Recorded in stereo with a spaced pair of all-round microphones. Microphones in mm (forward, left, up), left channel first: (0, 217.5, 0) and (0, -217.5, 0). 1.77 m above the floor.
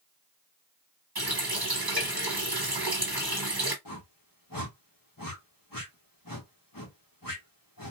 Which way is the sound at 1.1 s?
55° right (ahead or behind).